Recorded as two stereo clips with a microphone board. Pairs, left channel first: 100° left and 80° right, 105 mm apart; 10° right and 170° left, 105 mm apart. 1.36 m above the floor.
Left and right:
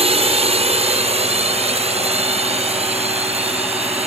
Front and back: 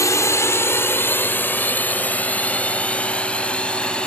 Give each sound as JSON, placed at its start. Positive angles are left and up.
{"t": 0.0, "sound": "a drone", "azimuth_deg": -70}